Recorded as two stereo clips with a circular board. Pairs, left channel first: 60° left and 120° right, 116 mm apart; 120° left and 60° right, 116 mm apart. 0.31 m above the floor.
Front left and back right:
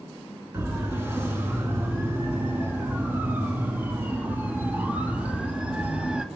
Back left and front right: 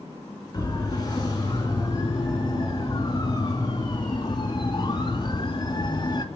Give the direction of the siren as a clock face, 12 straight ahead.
6 o'clock.